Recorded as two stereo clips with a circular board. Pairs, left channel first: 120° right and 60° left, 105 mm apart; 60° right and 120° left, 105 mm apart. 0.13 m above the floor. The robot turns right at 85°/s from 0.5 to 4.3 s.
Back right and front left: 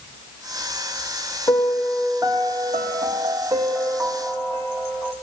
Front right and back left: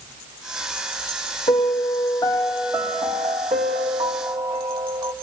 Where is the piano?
60° right, 1.3 m; by 5.1 s straight behind, 1.3 m.